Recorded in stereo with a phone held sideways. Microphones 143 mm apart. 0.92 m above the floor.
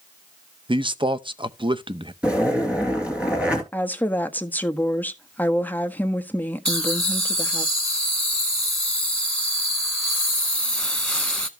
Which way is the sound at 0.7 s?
35° right (ahead or behind).